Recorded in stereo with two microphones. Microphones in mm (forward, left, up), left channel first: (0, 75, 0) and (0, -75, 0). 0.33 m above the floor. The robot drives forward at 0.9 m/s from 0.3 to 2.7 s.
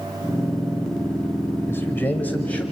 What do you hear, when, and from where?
1.7 s a man speaking: 15° left (ahead or behind), 1.0 m; by 2.6 s 10° left (ahead or behind), 1.6 m